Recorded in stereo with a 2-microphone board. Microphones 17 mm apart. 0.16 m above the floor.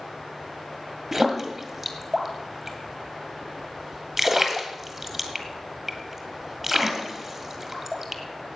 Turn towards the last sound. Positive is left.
turn(degrees=-5)  # may be behind; listen again after turning